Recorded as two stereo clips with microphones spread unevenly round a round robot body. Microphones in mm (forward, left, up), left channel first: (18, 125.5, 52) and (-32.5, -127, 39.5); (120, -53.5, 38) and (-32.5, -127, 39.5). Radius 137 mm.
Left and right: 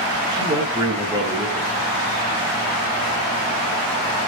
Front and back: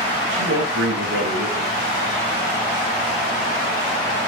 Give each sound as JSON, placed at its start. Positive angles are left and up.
{"t": 0.3, "sound": "a man speaking", "azimuth_deg": -175, "distance_m": 8.5}